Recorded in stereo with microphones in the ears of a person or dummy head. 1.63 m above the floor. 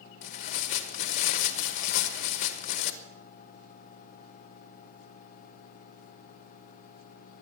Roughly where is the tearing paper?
Left.